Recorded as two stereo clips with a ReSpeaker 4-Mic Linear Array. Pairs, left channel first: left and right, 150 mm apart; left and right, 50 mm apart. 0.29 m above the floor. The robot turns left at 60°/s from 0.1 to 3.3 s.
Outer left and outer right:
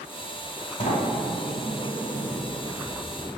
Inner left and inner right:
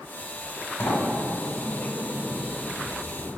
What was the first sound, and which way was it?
A sliding door, 105° left.